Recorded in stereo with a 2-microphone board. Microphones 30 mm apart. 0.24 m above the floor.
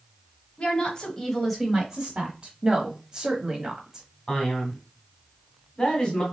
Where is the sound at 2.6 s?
25° right (ahead or behind), 1.0 m.